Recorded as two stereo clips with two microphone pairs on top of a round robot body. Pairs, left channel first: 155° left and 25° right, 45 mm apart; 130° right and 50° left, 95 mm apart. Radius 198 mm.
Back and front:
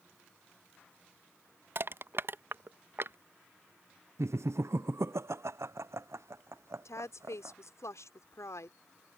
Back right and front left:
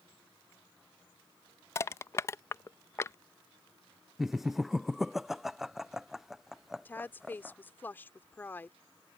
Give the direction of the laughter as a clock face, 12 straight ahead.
1 o'clock.